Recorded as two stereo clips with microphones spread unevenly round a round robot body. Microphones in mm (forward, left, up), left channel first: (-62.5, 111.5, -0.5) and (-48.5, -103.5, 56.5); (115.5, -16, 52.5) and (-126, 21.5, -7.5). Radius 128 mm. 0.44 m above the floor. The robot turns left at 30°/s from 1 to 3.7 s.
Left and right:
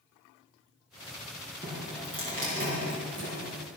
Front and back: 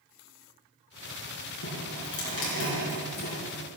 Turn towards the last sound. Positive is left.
turn(degrees=-70)